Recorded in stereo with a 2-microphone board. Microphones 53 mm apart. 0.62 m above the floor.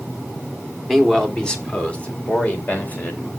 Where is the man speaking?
Centre (ahead or behind), 1.6 m; by 3.3 s 30° left (ahead or behind), 3.5 m.